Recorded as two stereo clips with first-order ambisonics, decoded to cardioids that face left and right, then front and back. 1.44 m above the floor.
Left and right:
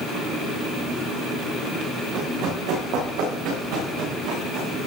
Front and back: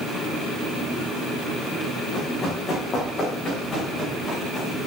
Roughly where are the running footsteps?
Ahead right.